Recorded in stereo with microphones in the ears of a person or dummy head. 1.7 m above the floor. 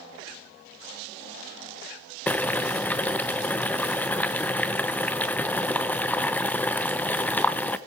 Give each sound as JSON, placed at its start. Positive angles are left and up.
{"t": 2.3, "sound": "boiling", "side_deg": 5, "distance_m": 0.6}